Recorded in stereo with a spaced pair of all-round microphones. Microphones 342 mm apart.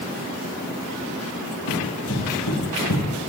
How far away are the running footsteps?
About 4 m.